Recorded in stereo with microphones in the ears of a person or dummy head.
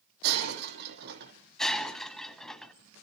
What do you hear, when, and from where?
0.2 s breaking glass: 60° right (ahead or behind), 4.5 m
1.6 s breaking glass: 5° left (ahead or behind), 2 m